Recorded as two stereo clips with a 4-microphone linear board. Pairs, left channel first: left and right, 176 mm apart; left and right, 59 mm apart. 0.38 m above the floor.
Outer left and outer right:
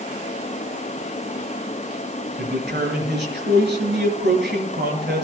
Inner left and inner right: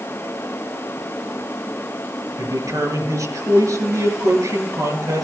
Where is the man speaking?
75° right (ahead or behind), 5.5 m.